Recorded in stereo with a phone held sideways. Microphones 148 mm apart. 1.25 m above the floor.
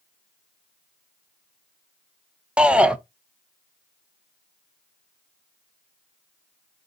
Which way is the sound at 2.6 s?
5° right (ahead or behind).